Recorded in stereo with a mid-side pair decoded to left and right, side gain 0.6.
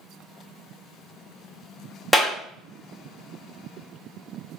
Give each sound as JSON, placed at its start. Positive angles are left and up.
{"t": 2.1, "sound": "a clap", "azimuth_deg": 5, "distance_m": 1.9}